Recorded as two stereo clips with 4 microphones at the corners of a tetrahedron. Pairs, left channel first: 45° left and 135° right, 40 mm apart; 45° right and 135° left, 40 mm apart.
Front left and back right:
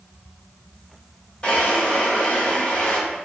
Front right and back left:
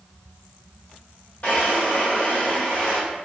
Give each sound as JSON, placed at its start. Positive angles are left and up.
{"t": 1.4, "sound": "a drawer", "azimuth_deg": -10, "distance_m": 2.0}